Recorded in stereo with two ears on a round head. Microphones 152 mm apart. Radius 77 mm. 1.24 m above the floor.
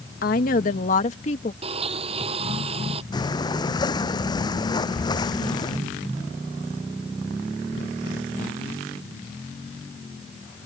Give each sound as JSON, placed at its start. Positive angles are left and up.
{"t": 0.2, "sound": "a woman speaking", "side_deg": 55}
{"t": 1.6, "sound": "a blender", "side_deg": -35}
{"t": 3.1, "sound": "breathing", "side_deg": 25}